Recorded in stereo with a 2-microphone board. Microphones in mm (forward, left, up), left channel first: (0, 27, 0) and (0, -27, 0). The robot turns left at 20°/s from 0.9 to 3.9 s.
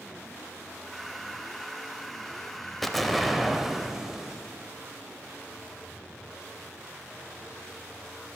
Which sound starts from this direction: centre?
An explosion, at 2.8 s.